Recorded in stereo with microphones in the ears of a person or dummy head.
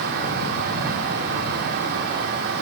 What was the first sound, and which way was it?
Only background noise.